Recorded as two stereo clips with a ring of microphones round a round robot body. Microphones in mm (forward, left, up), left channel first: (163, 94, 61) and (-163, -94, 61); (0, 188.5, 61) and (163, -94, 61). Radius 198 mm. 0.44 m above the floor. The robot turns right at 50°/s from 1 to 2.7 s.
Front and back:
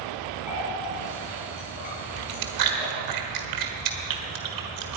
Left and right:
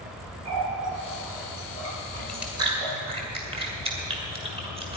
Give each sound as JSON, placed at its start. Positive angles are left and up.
{"t": 0.5, "sound": "a running tap", "azimuth_deg": -65, "distance_m": 6.5}
{"t": 2.2, "sound": "chewing", "azimuth_deg": -160, "distance_m": 1.6}